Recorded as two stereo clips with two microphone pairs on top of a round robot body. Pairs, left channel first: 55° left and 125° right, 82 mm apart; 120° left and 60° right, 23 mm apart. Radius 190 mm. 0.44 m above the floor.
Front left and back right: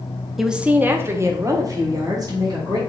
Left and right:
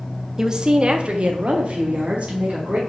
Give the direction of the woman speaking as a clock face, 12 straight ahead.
1 o'clock.